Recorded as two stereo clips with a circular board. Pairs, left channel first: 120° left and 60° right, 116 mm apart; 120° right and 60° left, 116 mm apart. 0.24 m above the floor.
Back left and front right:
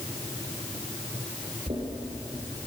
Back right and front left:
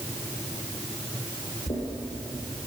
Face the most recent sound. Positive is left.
turn(degrees=-95)